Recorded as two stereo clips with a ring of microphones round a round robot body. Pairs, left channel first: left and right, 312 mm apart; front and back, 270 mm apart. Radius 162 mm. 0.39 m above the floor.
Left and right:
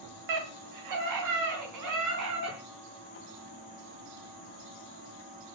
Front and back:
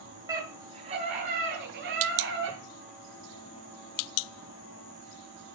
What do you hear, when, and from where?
0.3 s a scream: 100° right, 3 m; by 2.6 s 125° right, 5 m